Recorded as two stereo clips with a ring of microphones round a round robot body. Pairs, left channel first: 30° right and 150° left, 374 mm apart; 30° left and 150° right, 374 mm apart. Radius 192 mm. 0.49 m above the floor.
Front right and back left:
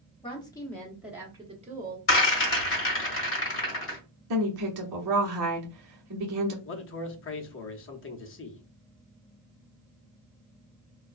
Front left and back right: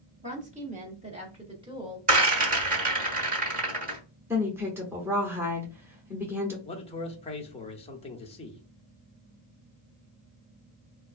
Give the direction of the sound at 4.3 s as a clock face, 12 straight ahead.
8 o'clock.